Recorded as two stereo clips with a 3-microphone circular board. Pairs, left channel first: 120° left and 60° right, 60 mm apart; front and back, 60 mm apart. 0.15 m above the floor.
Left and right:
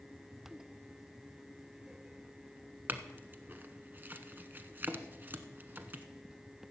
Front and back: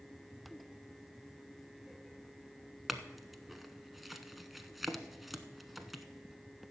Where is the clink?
95° right, 0.9 m.